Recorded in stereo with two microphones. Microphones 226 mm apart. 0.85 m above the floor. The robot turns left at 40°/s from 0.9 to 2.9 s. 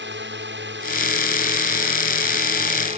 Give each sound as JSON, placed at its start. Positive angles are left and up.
{"t": 0.0, "sound": "a drone", "azimuth_deg": -65}